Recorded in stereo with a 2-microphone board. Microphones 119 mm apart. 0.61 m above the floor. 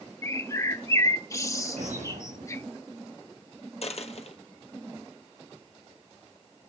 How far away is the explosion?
About 5.5 m.